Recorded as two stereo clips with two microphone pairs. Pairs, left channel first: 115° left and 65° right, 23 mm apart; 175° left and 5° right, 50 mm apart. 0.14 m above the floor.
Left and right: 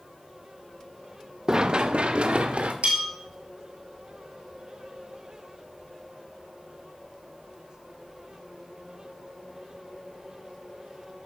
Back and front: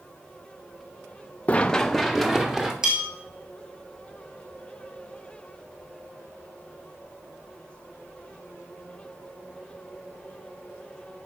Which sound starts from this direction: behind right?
Running footsteps, at 1.5 s.